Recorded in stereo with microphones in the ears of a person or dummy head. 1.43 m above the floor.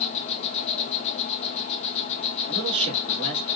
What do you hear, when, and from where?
0.0 s an insect: 40° left (ahead or behind), 0.8 m
2.5 s a man speaking: 30° right (ahead or behind), 2 m